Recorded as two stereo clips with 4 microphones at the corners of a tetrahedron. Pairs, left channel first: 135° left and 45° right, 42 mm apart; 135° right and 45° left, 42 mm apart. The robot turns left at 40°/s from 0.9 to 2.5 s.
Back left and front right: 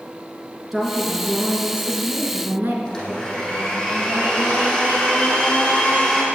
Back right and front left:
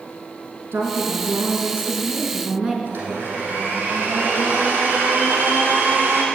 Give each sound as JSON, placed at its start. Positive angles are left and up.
{"t": 0.7, "sound": "a woman speaking", "azimuth_deg": 40, "distance_m": 3.0}
{"t": 2.9, "sound": "a blender", "azimuth_deg": 55, "distance_m": 4.0}